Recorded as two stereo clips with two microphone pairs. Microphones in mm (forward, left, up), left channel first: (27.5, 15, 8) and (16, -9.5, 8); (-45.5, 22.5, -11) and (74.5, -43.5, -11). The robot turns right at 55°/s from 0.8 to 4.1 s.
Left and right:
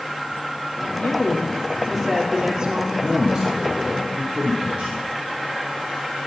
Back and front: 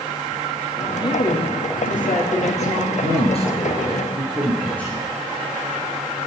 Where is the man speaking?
170° left, 3 m; by 5.1 s 130° right, 3 m.